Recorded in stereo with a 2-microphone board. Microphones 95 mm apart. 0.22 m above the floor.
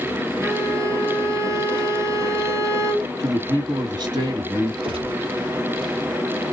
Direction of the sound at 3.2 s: 55° right (ahead or behind).